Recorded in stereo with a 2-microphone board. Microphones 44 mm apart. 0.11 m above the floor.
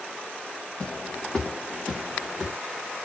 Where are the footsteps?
30° left (ahead or behind), 1.2 m; by 2.5 s 25° right (ahead or behind), 1.2 m.